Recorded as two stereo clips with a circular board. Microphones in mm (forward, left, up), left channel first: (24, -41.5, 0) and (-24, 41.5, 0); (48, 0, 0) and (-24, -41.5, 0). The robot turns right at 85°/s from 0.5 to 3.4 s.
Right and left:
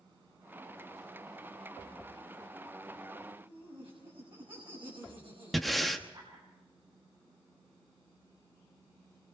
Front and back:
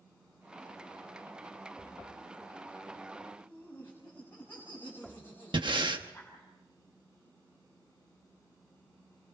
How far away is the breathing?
About 1.2 m.